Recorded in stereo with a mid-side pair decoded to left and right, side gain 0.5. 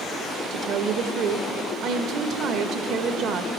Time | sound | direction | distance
0.5 | a woman speaking | 65° right | 0.8 m